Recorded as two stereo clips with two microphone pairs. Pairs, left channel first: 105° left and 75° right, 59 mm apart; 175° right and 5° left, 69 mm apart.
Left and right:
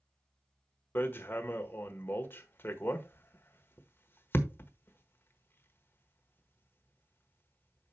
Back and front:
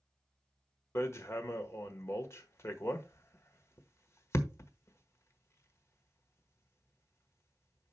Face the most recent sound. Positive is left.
turn(degrees=150)